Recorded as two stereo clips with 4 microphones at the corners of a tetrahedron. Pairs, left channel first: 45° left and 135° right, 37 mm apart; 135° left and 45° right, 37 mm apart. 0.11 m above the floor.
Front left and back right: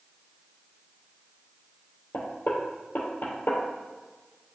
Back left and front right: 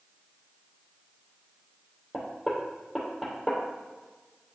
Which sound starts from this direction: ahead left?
Knocking, at 2.1 s.